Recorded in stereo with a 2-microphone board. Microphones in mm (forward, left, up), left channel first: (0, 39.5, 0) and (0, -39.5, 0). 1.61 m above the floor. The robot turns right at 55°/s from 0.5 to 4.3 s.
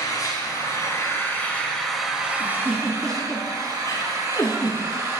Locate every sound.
0.0 s an engine running: 100° left, 1.8 m; by 5.2 s 50° right, 1.8 m
2.4 s a giggle: 30° right (ahead or behind), 1.7 m; by 4.8 s 55° left (ahead or behind), 1.7 m